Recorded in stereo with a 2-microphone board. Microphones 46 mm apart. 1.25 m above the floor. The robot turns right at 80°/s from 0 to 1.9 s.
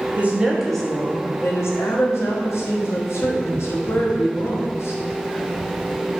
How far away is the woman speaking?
About 0.9 m.